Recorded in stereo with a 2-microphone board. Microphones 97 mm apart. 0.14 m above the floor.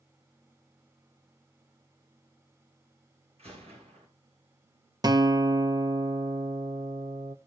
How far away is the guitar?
About 0.7 m.